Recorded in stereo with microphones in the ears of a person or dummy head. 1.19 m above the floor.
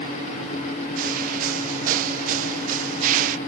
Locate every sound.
1.0 s footsteps: 50° right (ahead or behind)